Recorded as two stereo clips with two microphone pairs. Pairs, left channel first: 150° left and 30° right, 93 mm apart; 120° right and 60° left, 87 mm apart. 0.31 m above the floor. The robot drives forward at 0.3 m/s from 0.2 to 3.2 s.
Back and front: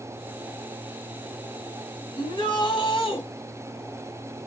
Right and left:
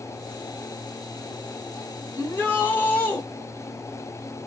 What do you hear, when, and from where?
2.2 s a shout: 170° left, 3 m; by 3.2 s 175° left, 3.5 m